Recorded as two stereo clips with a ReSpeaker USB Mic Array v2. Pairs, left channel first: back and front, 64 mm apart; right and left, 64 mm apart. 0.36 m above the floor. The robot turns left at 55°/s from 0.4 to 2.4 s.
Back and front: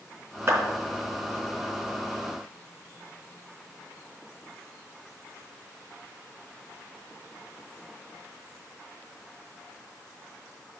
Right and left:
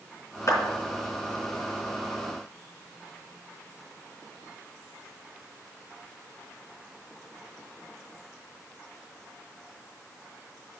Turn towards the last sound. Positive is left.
turn(degrees=-160)